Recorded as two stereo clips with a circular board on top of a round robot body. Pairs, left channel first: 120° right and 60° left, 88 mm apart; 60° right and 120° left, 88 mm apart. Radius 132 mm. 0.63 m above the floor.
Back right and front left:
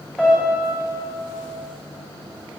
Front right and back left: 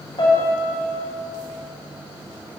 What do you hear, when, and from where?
0.2 s a piano: 40° right, 2.5 m